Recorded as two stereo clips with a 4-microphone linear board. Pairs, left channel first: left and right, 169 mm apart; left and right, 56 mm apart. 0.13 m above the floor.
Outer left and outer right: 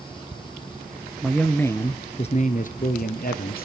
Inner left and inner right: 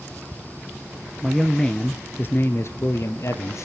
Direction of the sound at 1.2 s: Centre (ahead or behind).